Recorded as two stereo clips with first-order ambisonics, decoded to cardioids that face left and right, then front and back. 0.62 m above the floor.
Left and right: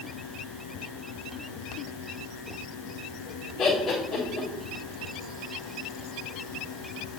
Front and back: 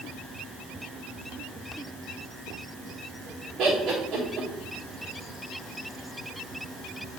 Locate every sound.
3.6 s laughter: 155° left, 1.3 m